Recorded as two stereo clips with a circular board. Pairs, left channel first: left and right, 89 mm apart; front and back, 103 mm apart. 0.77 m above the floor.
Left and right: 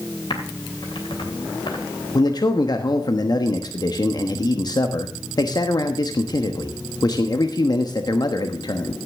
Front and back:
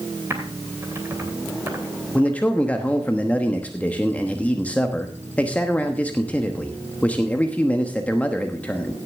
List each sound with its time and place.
0.3 s typing on a keyboard: 115° left, 2.5 m
2.1 s a man speaking: 70° left, 1.1 m